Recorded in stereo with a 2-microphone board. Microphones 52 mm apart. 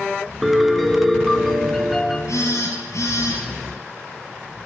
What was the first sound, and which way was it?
A piano, centre (ahead or behind).